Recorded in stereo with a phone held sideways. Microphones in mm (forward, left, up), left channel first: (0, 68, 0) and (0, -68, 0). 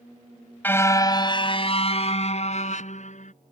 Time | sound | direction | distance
0.6 | a car horn | 15° left (ahead or behind) | ?